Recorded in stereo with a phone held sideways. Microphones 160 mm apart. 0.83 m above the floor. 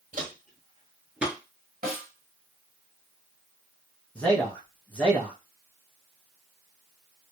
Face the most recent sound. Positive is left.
turn(degrees=10)  # may be behind; listen again after turning